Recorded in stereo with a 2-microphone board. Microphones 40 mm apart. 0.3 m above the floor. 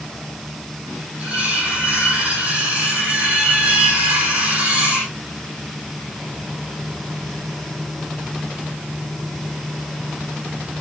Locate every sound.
1.2 s cutlery clinking: 35° right (ahead or behind), 9 m